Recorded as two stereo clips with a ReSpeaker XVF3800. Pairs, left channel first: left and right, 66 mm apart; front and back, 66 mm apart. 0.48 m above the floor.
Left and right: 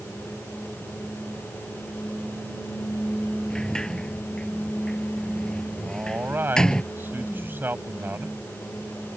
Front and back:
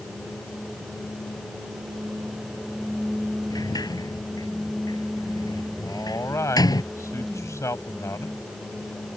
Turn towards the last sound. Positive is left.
turn(degrees=-35)